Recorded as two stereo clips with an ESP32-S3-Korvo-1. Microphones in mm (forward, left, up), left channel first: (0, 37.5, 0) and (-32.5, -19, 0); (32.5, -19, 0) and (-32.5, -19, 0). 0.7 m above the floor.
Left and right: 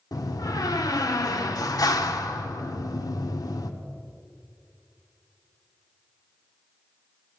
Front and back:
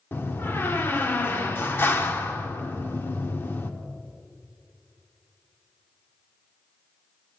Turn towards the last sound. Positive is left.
turn(degrees=55)